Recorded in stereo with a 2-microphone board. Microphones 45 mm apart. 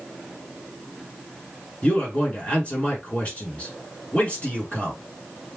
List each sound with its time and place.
1.8 s a man speaking: 25° left (ahead or behind), 3 m